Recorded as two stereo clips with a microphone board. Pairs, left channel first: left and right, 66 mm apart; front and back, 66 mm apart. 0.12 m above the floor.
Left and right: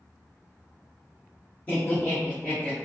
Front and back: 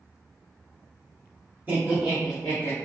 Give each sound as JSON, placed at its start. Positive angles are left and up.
{"t": 1.7, "sound": "laughter", "azimuth_deg": 135, "distance_m": 1.6}